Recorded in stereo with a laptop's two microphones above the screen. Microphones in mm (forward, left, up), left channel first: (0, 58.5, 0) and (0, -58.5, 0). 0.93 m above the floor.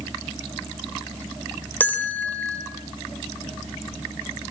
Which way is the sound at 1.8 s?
15° left (ahead or behind).